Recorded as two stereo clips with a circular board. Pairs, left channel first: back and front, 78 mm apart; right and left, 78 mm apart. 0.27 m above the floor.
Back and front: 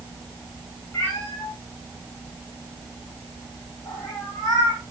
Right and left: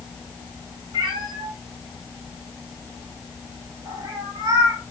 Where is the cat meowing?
120° left, 9 m; by 4.8 s 140° left, 6 m.